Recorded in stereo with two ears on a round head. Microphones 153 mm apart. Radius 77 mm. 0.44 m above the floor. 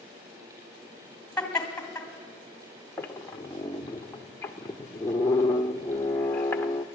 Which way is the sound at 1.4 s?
5° left (ahead or behind).